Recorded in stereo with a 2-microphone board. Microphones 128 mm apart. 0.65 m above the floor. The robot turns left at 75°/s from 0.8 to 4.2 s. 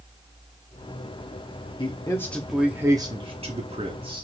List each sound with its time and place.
1.8 s a man speaking: 50° left, 0.9 m; by 4.2 s 130° right, 0.9 m